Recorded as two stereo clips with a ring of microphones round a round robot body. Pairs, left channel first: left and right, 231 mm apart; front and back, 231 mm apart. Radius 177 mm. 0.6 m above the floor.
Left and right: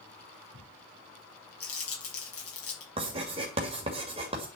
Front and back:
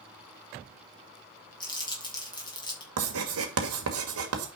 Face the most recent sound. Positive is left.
turn(degrees=-160)